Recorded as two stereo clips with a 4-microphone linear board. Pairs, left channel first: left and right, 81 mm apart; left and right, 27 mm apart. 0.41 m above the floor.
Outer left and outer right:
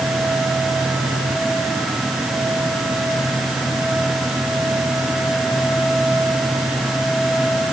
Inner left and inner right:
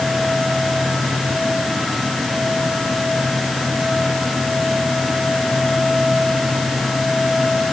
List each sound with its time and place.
Only background noise.